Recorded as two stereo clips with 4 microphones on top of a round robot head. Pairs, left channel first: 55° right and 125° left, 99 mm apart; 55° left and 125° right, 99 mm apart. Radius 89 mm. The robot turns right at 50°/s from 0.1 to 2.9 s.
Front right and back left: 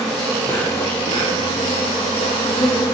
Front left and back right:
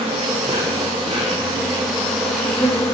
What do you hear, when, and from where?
0.0 s an insect: 145° right, 0.8 m; by 3.0 s 5° right, 0.8 m